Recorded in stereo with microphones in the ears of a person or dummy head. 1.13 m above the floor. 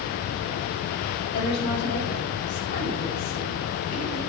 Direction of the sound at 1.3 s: 55° left (ahead or behind).